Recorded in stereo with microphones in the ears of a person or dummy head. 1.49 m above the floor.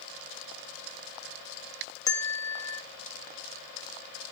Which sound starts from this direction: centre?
A bell, at 2.1 s.